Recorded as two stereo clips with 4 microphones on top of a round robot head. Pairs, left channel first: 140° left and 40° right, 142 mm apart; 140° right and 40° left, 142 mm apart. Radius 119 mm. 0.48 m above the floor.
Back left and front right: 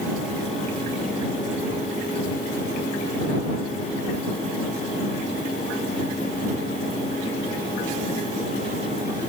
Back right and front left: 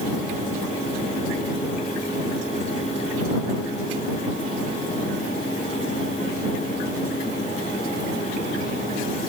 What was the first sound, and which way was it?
Only background noise.